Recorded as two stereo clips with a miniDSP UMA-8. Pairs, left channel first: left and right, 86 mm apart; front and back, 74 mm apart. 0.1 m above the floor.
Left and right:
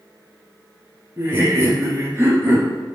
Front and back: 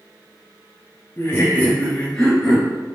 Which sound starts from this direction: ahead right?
Laughter, at 1.2 s.